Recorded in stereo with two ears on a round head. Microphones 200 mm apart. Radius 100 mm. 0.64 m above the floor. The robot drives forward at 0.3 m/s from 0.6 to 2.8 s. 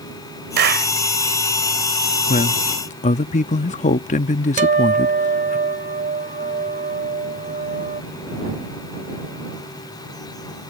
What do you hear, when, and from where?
0.6 s a clap: 50° right (ahead or behind)
2.3 s a man speaking: 35° left (ahead or behind); by 5.6 s 30° left (ahead or behind)
4.6 s a guitar: 35° right (ahead or behind)